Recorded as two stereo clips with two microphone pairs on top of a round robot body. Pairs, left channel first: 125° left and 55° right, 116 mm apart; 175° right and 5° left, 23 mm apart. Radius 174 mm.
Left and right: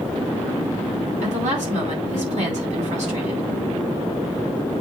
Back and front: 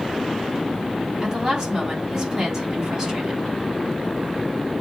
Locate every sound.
1.2 s a woman speaking: 65° right, 4.5 m